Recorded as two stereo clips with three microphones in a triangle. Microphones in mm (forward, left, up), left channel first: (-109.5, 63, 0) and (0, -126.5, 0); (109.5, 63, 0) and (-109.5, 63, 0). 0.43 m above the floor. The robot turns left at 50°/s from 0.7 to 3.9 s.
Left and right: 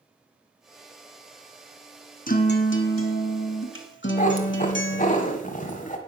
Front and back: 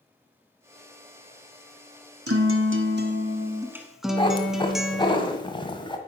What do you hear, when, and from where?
2.3 s a guitar: 175° left, 1.3 m; by 5.2 s 90° left, 1.3 m
4.2 s a cat meowing: 70° left, 1.5 m